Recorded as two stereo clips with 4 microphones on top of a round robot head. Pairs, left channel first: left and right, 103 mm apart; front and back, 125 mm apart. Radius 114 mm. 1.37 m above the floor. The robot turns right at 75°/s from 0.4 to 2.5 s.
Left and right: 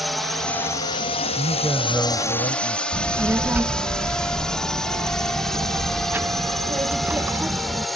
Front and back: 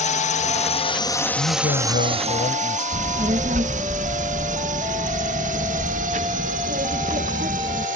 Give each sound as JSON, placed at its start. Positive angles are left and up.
{"t": 0.0, "sound": "a drone", "azimuth_deg": 0}
{"t": 1.4, "sound": "a man speaking", "azimuth_deg": -45}
{"t": 2.9, "sound": "a child speaking", "azimuth_deg": -155}